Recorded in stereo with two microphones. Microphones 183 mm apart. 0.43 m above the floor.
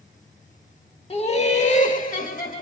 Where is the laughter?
30° left (ahead or behind), 1.0 m; by 2.6 s 50° left (ahead or behind), 1.7 m.